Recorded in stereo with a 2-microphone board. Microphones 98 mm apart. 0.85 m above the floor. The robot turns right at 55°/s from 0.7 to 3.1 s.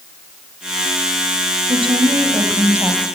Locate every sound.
1.7 s a woman speaking: 75° right, 4.5 m; by 3.0 s straight ahead, 4.5 m